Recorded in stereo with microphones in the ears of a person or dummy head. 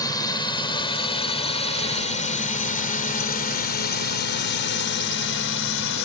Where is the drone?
15° left (ahead or behind); by 6.1 s 65° left (ahead or behind).